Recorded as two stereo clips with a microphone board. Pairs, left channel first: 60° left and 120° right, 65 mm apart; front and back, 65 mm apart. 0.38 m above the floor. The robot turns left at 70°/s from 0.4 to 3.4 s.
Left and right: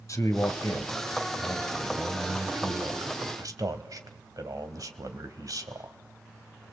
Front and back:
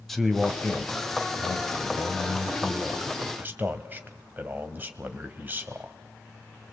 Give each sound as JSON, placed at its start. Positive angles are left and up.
{"t": 0.1, "sound": "a man speaking", "azimuth_deg": 85, "distance_m": 2.0}